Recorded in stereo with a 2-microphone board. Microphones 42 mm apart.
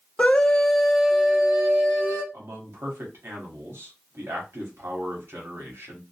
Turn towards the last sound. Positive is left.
turn(degrees=-70)  # may be behind; listen again after turning